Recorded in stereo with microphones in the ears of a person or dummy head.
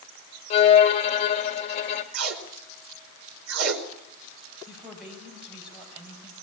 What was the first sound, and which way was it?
A violin, 35° left (ahead or behind).